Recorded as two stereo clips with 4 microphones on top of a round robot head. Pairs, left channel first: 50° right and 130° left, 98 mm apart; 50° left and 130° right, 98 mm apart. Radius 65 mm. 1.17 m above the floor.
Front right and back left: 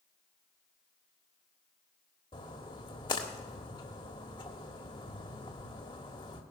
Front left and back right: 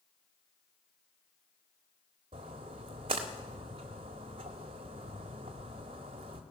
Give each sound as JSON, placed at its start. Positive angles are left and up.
{"t": 2.3, "sound": "a splash", "azimuth_deg": -95, "distance_m": 1.4}